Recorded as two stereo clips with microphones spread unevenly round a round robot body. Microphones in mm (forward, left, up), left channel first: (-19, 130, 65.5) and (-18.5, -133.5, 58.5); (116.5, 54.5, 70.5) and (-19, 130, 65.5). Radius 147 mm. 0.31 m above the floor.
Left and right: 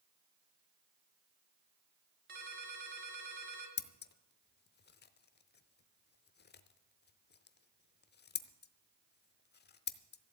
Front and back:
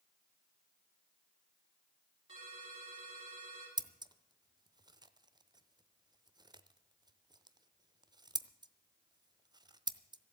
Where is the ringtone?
145° right, 3.5 m.